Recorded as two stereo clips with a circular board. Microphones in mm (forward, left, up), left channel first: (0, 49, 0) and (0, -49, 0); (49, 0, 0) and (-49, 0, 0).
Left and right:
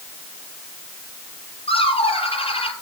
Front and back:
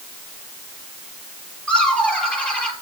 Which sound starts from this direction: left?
Laughter, at 1.7 s.